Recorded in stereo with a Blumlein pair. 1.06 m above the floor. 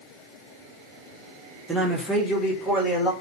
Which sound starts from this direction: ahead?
A man speaking, at 1.7 s.